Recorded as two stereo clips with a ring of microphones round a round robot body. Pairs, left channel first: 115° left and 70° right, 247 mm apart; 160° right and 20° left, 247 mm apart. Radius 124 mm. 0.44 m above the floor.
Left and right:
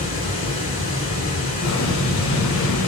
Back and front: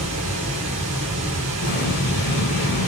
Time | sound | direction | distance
0.0 | running water | 45° left | 2 m
1.6 | an explosion | 150° left | 1.0 m